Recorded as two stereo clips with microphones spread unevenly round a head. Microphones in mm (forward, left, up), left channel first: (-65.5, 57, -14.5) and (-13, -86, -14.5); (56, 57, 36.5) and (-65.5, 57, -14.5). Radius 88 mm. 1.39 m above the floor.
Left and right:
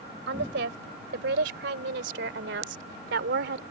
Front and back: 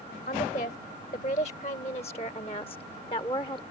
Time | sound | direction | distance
0.3 | a woman speaking | 45° right | ?